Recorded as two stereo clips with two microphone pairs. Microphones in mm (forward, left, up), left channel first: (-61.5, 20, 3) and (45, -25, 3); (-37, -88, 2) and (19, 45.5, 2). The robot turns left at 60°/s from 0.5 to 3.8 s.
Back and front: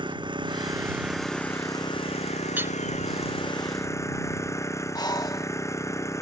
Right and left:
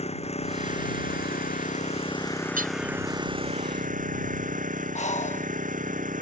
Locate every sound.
0.0 s an engine running: 70° right; by 6.2 s 90° left
2.6 s hammering: 55° left; by 2.8 s 40° left
5.0 s breathing: 150° right